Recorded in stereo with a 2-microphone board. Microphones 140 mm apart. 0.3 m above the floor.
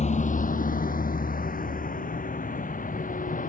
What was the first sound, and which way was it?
A vehicle, 55° left (ahead or behind).